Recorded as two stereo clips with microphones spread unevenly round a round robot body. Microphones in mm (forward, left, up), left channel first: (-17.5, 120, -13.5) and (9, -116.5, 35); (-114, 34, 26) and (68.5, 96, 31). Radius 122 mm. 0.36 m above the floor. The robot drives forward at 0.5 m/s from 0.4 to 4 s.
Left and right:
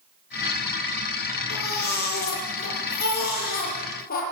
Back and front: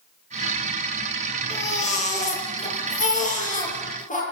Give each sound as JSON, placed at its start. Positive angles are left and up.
{"t": 1.5, "sound": "a baby crying", "azimuth_deg": 145, "distance_m": 7.5}